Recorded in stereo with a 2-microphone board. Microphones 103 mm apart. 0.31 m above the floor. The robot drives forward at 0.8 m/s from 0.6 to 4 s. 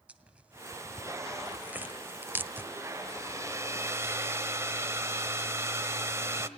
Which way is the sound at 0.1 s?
10° right (ahead or behind).